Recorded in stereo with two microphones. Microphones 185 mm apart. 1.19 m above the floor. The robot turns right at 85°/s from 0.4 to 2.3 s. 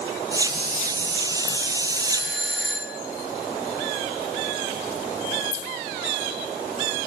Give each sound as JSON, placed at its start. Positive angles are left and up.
{"t": 2.1, "sound": "a doorbell", "side_deg": -70, "distance_m": 3.0}